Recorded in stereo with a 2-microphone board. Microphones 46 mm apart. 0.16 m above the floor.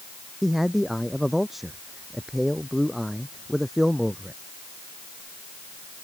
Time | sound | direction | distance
0.4 | a man speaking | 5° right (ahead or behind) | ?